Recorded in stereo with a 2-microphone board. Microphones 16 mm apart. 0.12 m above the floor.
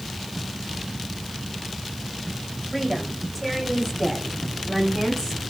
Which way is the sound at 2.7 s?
5° left (ahead or behind).